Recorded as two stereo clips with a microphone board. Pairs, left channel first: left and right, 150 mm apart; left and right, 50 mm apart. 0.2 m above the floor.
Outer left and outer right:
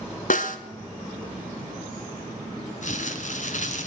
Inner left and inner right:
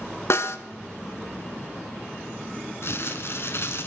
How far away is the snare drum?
About 0.8 m.